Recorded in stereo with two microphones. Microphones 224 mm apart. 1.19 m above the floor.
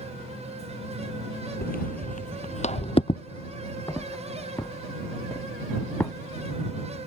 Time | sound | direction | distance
1.6 | footsteps | 40° left (ahead or behind) | ?